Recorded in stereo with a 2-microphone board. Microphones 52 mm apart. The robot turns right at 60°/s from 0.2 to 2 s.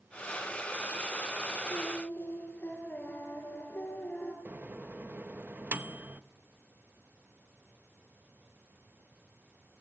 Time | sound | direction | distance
1.7 | singing | 50° left (ahead or behind) | 5 m
4.5 | a microwave | 35° right (ahead or behind) | 0.8 m